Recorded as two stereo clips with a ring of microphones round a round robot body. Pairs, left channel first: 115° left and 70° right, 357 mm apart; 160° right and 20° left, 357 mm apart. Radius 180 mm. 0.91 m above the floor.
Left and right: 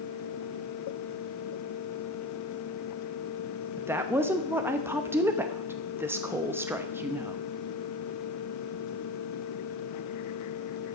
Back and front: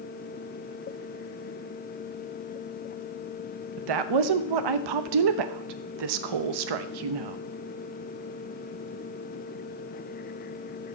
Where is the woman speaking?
15° left, 0.9 m.